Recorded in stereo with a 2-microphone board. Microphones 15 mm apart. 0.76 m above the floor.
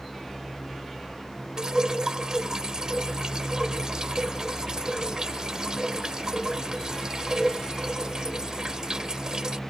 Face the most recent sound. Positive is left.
turn(degrees=-40)  # may be behind; listen again after turning